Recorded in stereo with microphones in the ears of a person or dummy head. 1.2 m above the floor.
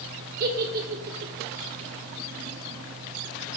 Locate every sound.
0.4 s a giggle: 45° right (ahead or behind), 1.2 m